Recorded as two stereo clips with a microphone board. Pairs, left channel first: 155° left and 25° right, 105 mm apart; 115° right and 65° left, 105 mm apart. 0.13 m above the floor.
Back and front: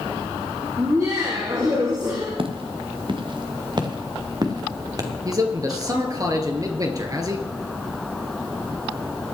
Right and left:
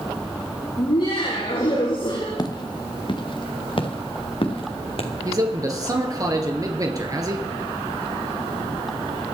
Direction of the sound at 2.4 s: 60° right.